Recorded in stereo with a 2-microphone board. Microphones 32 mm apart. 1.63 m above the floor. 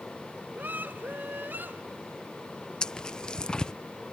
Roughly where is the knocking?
I don't hear knocking.